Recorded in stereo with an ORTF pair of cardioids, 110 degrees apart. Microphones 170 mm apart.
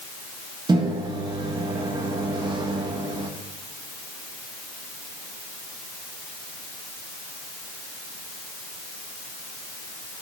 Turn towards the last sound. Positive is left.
turn(degrees=-25)